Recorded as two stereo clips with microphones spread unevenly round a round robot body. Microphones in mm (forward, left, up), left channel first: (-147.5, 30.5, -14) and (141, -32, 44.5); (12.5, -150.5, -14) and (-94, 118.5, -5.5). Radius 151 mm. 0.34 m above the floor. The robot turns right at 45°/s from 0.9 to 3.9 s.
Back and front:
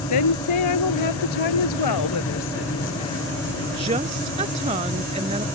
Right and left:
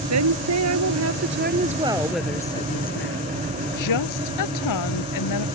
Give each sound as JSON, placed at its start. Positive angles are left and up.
{"t": 0.1, "sound": "a woman speaking", "azimuth_deg": 145}